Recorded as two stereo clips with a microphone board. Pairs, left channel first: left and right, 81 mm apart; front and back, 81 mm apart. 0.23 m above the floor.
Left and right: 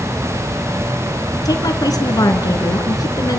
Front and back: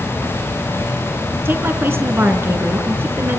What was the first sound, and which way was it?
A woman speaking, 120° left.